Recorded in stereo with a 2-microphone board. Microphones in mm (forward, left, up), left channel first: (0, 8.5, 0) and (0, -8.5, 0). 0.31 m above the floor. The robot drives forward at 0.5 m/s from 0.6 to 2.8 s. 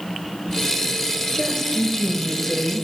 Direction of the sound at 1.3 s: 20° left (ahead or behind).